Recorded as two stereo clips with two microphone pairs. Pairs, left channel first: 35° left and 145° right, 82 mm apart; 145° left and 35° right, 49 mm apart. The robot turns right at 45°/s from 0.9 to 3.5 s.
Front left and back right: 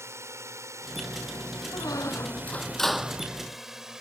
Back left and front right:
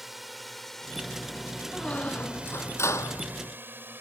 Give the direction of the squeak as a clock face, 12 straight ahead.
10 o'clock.